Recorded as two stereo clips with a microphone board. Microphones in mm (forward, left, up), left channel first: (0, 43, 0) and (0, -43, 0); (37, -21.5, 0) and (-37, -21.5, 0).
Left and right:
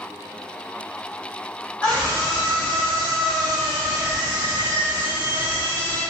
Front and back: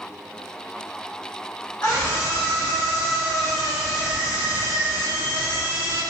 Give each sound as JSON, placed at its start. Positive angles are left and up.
{"t": 1.8, "sound": "a scream", "azimuth_deg": 40, "distance_m": 1.5}